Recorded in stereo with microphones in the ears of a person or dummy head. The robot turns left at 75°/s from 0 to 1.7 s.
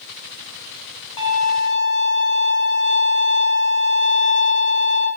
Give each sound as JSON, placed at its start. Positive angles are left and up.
{"t": 1.2, "sound": "a violin", "azimuth_deg": 145, "distance_m": 2.5}